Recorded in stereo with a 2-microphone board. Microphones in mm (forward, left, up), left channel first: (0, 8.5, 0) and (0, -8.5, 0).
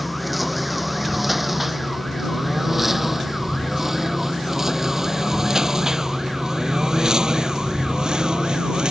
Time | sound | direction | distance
0.0 | a lawn mower | 5° left (ahead or behind) | ?